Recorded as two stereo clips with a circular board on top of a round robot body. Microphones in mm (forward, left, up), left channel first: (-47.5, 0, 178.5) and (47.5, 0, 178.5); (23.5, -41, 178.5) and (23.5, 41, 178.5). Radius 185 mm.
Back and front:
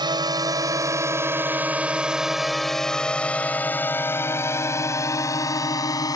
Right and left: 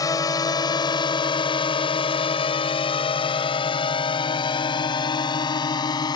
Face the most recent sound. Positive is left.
turn(degrees=-130)